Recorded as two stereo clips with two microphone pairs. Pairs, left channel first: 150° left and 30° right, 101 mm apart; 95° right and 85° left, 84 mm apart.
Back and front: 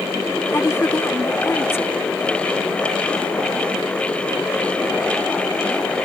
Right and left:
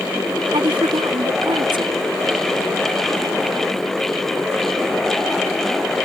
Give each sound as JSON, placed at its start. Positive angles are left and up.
{"t": 0.5, "sound": "a woman speaking", "azimuth_deg": 85}